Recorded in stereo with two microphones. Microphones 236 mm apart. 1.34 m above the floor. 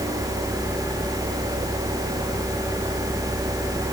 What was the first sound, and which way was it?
Only background noise.